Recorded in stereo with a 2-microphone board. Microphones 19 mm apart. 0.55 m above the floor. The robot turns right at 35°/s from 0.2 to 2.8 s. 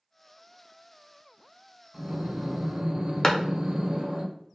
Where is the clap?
30° left (ahead or behind), 0.5 m.